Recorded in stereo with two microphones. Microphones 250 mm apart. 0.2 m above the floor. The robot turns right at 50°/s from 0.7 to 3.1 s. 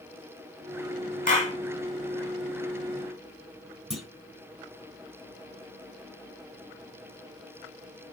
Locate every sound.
1.3 s a clap: 35° left (ahead or behind), 1.2 m; by 1.6 s 25° left (ahead or behind), 1.2 m
3.9 s a clunk: 5° right (ahead or behind), 1.3 m